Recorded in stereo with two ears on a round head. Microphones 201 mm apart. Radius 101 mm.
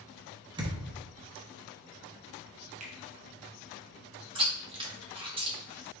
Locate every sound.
0.6 s a thud: 20° right (ahead or behind), 0.7 m
2.8 s a finger snap: 35° right (ahead or behind), 0.8 m
4.3 s chewing: 25° right (ahead or behind), 0.9 m